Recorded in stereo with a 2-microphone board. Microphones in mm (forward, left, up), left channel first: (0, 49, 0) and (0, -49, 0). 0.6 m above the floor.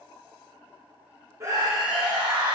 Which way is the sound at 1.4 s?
30° right (ahead or behind).